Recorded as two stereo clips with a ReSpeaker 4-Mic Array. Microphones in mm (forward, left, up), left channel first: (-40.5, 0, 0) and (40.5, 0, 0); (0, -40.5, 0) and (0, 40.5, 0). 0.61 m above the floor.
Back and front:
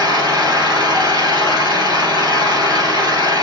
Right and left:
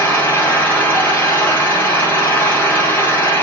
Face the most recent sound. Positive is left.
turn(degrees=-25)